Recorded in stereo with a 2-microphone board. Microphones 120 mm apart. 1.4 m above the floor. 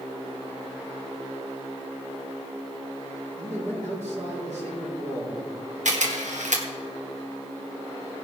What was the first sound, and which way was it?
A man speaking, 75° right (ahead or behind).